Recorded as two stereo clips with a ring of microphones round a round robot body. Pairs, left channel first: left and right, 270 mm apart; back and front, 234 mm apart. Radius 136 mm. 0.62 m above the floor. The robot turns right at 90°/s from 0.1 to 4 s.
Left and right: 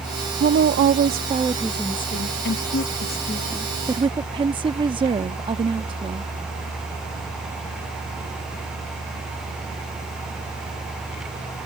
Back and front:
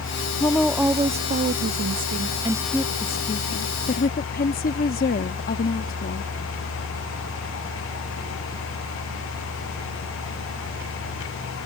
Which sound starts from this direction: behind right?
A woman speaking, at 0.4 s.